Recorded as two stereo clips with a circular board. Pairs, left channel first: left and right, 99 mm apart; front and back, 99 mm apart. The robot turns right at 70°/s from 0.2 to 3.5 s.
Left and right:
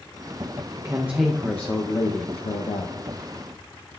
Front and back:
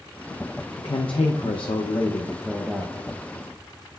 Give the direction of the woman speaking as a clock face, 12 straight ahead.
1 o'clock.